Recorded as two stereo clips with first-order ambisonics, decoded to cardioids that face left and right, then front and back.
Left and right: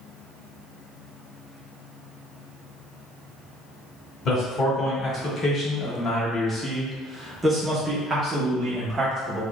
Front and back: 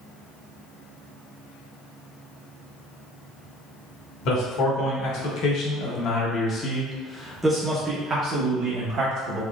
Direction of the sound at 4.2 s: 25° left.